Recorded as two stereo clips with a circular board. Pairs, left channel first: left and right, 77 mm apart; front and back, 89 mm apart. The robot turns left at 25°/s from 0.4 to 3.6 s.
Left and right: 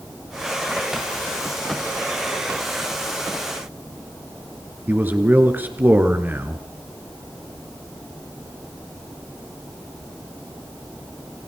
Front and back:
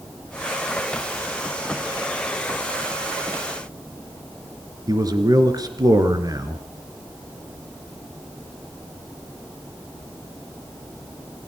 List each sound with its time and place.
4.9 s a man speaking: 150° right, 3 m